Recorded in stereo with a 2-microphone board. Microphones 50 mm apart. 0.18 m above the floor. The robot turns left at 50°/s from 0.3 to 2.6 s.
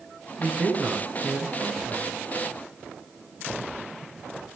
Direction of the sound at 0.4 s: 25° right (ahead or behind).